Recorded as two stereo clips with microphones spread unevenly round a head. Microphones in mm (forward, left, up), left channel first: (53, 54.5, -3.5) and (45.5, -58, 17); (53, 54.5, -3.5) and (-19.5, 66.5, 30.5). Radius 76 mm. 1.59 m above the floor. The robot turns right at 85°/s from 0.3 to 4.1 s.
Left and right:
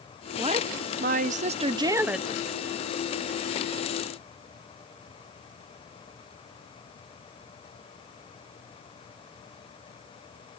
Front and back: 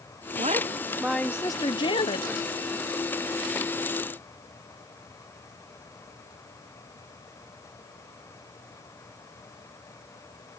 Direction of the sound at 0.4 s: 160° right.